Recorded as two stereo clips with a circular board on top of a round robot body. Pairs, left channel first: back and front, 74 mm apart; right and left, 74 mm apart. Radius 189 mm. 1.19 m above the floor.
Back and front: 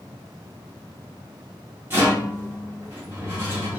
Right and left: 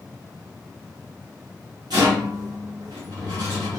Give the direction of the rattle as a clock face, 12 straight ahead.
10 o'clock.